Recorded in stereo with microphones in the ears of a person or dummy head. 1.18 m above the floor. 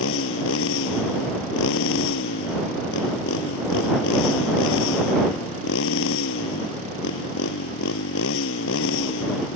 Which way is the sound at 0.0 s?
75° left (ahead or behind).